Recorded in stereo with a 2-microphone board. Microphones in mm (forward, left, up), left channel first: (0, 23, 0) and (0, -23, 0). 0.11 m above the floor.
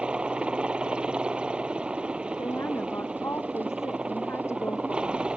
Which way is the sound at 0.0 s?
20° right (ahead or behind).